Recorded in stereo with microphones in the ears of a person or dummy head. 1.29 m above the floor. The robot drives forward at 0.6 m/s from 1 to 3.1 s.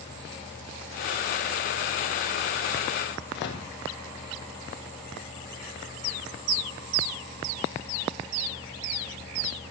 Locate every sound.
3.3 s a microwave: 55° left (ahead or behind), 1.9 m